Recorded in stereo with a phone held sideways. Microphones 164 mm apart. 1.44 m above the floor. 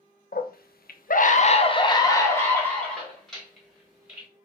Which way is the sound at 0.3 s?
70° left (ahead or behind).